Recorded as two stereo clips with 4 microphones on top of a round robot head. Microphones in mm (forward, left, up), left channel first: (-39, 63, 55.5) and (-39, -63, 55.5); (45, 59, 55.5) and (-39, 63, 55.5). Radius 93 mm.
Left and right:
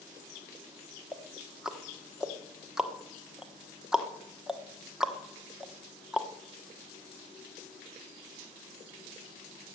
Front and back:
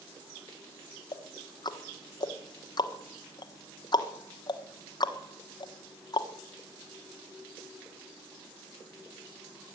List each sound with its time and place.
1.1 s ticking: 5° right, 1.4 m